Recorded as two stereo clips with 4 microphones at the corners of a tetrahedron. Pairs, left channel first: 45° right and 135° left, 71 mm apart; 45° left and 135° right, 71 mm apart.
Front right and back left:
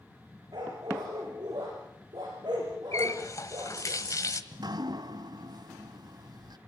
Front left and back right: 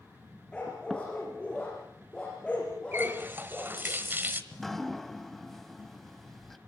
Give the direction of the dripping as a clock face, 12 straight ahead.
8 o'clock.